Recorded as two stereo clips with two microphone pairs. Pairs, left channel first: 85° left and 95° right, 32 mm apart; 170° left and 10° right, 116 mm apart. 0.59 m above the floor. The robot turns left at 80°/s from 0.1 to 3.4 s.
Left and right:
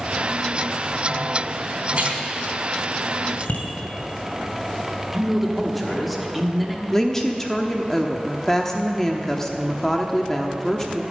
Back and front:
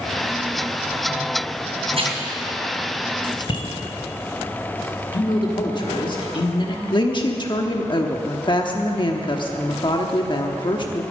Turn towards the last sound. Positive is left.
turn(degrees=165)